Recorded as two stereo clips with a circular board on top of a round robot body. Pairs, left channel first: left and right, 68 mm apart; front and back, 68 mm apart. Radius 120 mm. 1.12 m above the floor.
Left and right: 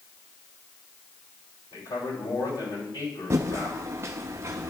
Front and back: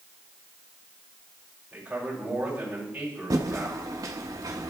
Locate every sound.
1.7 s a man speaking: 105° left, 6 m
3.3 s typing on a keyboard: 140° right, 0.6 m